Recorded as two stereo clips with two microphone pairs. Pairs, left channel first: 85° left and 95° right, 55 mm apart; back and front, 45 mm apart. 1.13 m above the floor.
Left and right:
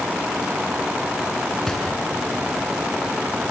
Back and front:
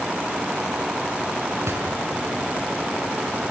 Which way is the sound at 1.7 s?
5° left.